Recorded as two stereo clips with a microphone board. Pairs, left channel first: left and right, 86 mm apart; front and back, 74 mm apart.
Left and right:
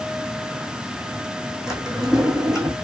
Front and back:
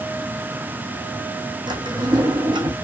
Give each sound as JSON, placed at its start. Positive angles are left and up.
{"t": 1.7, "sound": "a drawer", "azimuth_deg": -175, "distance_m": 1.6}